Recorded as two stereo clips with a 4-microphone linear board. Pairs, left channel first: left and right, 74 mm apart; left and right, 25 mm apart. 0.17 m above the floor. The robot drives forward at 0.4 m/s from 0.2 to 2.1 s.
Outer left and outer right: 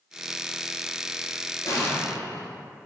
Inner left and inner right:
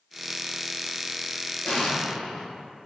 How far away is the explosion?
About 1.0 m.